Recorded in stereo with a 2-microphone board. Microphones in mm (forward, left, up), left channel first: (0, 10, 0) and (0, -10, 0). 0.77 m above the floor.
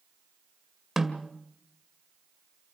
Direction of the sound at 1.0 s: 15° right (ahead or behind).